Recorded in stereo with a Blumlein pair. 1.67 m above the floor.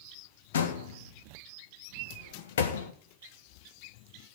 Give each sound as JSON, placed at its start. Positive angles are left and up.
{"t": 0.5, "sound": "a door slam", "azimuth_deg": 60, "distance_m": 1.6}